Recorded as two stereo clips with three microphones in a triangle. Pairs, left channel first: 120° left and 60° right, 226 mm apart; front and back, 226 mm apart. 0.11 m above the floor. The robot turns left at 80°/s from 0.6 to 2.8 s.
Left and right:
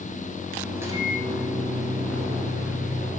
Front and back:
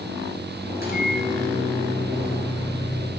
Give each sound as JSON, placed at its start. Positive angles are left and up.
{"t": 0.8, "sound": "a microwave", "azimuth_deg": 20, "distance_m": 1.8}